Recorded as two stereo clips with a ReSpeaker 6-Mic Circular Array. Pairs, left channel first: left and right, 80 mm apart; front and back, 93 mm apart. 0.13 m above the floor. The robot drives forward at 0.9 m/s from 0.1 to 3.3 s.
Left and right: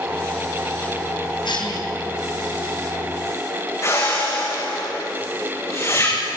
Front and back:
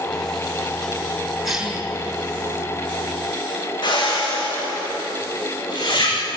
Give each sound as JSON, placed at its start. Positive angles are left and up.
{"t": 1.4, "sound": "a cough", "azimuth_deg": 90, "distance_m": 6.0}
{"t": 3.8, "sound": "a whoosh", "azimuth_deg": 35, "distance_m": 7.0}